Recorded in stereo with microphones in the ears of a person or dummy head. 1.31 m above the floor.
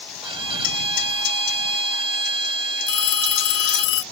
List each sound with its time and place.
0.2 s a violin: 25° right (ahead or behind)
2.9 s a phone ringing: 75° left (ahead or behind)